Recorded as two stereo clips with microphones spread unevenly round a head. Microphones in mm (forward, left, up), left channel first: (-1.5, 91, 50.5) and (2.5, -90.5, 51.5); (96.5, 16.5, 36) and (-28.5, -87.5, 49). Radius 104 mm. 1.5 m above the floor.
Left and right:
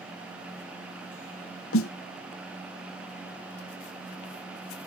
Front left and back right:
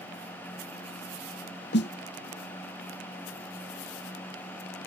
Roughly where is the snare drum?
Left.